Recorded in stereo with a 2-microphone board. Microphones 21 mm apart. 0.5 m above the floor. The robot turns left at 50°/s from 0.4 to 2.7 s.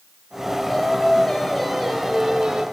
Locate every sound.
0.7 s singing: 65° left, 1.9 m; by 2.6 s 35° right, 1.9 m